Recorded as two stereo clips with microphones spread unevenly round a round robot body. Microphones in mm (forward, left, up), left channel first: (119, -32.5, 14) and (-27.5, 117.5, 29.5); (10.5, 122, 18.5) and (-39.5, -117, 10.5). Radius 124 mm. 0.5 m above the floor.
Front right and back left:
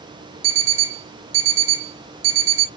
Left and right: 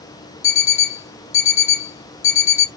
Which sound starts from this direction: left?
An alarm clock, at 0.4 s.